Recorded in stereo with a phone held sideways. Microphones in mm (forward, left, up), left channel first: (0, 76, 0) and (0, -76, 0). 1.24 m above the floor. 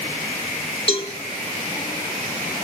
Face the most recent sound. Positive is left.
turn(degrees=40)  # may be behind; listen again after turning